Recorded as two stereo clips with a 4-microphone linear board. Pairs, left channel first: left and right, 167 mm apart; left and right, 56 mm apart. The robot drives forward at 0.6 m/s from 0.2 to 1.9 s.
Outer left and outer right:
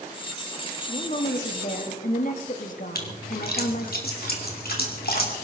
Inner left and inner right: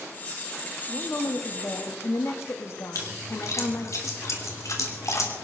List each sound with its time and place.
0.9 s a woman speaking: 45° left (ahead or behind), 1.8 m; by 4.0 s 55° left (ahead or behind), 1.5 m
3.0 s a splash: 65° left (ahead or behind), 2.5 m